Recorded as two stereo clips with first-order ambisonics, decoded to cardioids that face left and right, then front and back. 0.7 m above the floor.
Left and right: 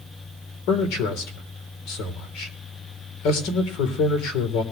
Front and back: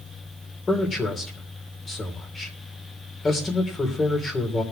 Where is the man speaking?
75° left, 3 m.